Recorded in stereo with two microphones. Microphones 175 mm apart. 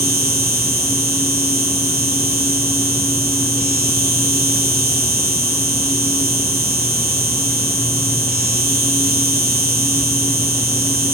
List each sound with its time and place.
0.0 s an insect: 60° right (ahead or behind)